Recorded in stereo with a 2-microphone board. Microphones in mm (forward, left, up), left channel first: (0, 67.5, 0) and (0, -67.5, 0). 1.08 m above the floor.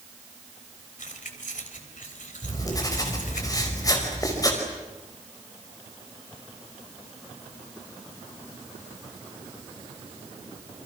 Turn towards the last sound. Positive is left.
turn(degrees=30)  # may be behind; listen again after turning